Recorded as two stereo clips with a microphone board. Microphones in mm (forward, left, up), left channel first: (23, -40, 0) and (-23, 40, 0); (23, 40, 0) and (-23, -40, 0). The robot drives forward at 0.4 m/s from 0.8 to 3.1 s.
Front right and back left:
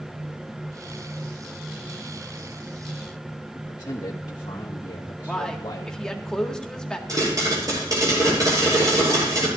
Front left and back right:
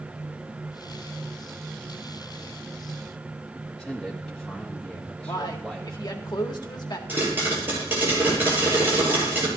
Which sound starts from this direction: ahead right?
A man speaking, at 3.5 s.